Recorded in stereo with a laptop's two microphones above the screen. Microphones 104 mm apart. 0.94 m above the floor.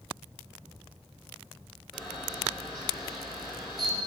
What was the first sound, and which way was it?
A camera shutter, centre (ahead or behind).